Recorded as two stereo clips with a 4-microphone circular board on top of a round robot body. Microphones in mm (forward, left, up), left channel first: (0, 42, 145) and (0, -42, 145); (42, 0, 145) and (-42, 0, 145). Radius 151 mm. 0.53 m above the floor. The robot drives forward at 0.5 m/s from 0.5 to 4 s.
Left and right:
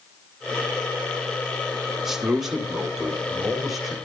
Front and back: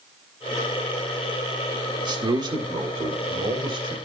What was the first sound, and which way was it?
A man speaking, 175° right.